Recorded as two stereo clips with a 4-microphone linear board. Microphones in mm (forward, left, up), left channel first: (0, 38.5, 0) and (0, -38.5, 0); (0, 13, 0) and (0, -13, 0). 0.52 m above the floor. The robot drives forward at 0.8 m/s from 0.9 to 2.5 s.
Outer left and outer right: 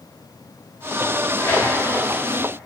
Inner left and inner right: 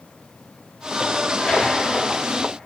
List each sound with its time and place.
1.4 s tearing paper: 40° left (ahead or behind), 3.5 m; by 1.6 s 45° left (ahead or behind), 3.5 m